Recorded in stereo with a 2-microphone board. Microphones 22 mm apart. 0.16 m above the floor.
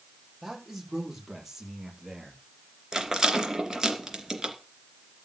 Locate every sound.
0.4 s a man speaking: 5° right (ahead or behind), 6 m; by 2.4 s 20° right (ahead or behind), 5 m
2.9 s a rattle: 25° right (ahead or behind), 2.5 m